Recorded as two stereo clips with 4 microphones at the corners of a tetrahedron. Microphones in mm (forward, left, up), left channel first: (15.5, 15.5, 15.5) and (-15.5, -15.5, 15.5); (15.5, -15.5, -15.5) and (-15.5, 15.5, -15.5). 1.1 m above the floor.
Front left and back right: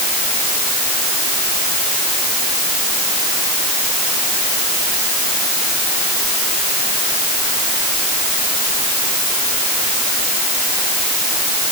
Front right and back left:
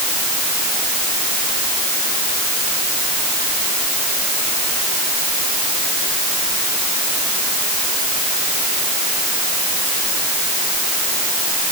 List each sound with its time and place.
Only background noise.